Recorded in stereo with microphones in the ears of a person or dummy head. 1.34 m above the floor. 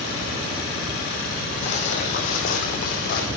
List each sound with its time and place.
1.6 s footsteps: 45° left (ahead or behind), 3 m; by 3.3 s 60° left (ahead or behind), 3 m